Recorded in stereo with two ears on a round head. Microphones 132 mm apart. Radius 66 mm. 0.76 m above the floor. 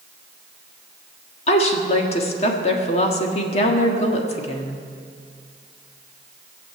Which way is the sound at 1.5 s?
45° left (ahead or behind).